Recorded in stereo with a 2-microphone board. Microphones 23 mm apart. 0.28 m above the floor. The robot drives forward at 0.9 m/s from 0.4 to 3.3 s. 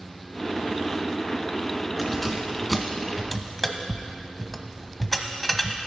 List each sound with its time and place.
2.0 s keys jangling: 5° left (ahead or behind), 2 m; by 5.8 s 10° left (ahead or behind), 1.0 m